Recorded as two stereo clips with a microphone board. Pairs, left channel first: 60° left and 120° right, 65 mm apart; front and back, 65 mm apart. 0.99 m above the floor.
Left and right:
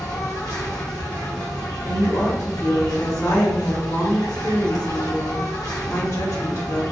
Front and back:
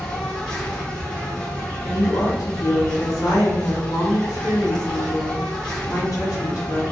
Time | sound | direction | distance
0.0 | an insect | 80° left | 1.1 m
1.8 | a woman speaking | 25° left | 1.9 m